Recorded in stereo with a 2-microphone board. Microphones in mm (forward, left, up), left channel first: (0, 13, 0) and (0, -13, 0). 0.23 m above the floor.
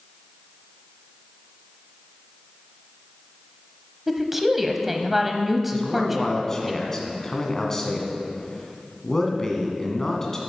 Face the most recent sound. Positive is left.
turn(degrees=20)  # may be behind; listen again after turning